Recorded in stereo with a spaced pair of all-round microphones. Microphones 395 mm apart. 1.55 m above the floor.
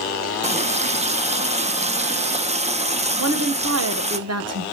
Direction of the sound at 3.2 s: 40° right (ahead or behind).